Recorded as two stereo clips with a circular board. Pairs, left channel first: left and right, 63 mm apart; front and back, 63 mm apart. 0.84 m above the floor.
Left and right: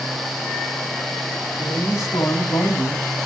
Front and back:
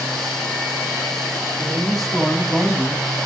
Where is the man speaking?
75° left, 6 m; by 3.1 s 100° left, 5 m.